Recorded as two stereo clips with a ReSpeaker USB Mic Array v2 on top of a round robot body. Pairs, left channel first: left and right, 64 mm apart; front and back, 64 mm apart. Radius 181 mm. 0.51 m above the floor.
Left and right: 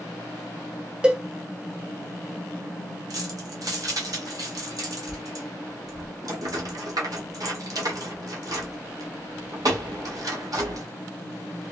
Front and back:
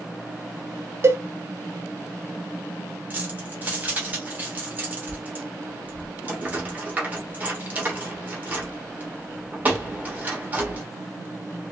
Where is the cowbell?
160° right, 0.7 m.